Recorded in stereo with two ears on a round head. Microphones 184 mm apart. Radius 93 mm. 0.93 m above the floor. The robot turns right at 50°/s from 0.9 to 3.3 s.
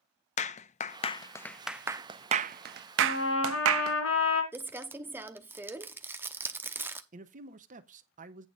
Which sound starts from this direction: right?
A man speaking, at 7.1 s.